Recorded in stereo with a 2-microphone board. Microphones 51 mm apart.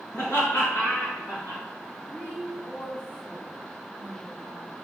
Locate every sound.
0.1 s laughter: 70° left (ahead or behind), 2.5 m; by 1.6 s 80° left, 4 m
2.1 s a woman speaking: 40° left (ahead or behind), 1.6 m